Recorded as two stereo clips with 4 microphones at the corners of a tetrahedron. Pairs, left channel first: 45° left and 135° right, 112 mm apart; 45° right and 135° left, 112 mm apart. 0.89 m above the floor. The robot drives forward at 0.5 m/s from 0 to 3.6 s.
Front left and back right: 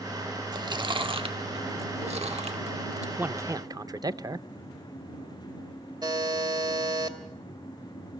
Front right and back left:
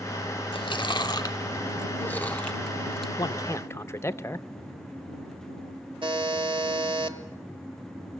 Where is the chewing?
85° right, 1.2 m; by 3.1 s 135° right, 1.6 m.